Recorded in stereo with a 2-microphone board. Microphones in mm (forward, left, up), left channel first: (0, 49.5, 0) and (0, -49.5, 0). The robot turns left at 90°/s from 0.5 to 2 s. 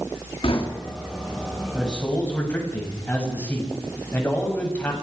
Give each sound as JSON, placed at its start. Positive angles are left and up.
{"t": 0.4, "sound": "knocking", "side_deg": 70, "distance_m": 3.0}
{"t": 1.7, "sound": "a man speaking", "side_deg": -5, "distance_m": 7.5}